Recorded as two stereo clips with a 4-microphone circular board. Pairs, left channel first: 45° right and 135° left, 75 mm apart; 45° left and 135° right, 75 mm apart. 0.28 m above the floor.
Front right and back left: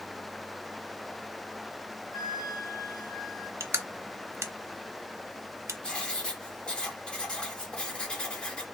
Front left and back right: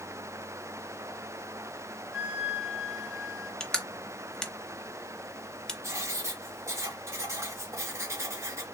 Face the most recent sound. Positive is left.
turn(degrees=-115)